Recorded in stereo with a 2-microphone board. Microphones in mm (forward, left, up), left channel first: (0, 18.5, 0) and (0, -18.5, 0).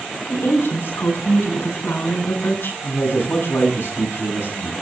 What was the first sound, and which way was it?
A woman speaking, 85° left.